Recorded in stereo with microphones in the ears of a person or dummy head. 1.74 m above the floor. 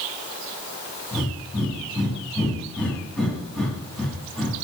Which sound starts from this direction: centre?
Breathing, at 1.1 s.